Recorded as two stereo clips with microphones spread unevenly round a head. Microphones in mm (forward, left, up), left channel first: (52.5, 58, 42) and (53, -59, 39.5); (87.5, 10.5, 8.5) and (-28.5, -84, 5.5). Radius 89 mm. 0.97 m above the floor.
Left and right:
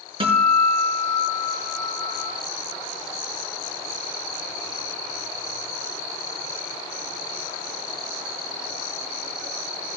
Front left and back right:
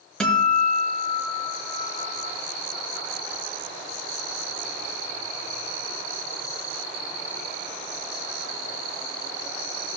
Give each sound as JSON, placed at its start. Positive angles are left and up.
{"t": 0.2, "sound": "a guitar", "azimuth_deg": -45, "distance_m": 5.5}